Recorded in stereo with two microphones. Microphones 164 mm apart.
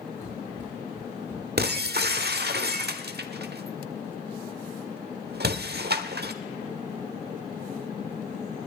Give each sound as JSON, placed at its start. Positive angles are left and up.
{"t": 0.2, "sound": "running footsteps", "side_deg": 25, "distance_m": 5.0}
{"t": 1.6, "sound": "breaking glass", "side_deg": -85, "distance_m": 1.1}